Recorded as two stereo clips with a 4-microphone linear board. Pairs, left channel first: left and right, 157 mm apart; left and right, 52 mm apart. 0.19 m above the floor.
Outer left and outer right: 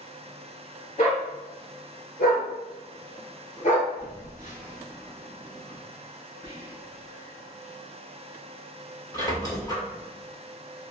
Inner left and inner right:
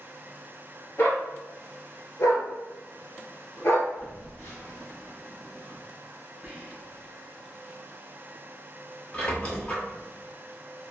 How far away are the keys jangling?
I don't hear keys jangling.